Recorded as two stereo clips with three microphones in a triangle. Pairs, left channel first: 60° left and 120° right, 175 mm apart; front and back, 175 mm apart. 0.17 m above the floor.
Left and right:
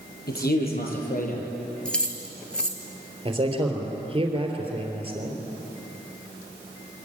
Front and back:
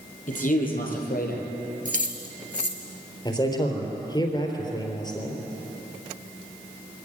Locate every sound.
0.3 s a man speaking: 40° left, 5 m; by 1.4 s 25° left, 4 m
1.9 s keys jangling: 145° left, 1.8 m
3.2 s a man speaking: 65° right, 3.5 m